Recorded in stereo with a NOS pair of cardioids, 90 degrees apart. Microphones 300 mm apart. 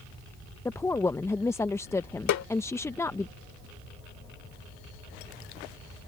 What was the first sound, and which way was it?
A woman speaking, 10° left.